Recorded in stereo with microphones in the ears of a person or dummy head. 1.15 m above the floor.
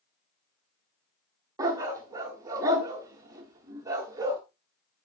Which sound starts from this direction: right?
A dog barking, at 1.6 s.